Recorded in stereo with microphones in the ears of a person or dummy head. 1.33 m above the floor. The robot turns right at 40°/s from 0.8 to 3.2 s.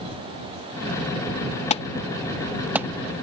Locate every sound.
1.7 s an alarm: 30° left (ahead or behind); by 2.9 s 15° right (ahead or behind)